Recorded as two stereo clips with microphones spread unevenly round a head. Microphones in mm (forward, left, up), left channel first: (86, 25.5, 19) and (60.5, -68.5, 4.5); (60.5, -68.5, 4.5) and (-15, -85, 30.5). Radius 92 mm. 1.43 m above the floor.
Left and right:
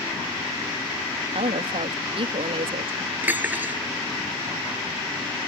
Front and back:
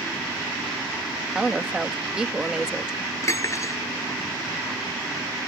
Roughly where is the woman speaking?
Right.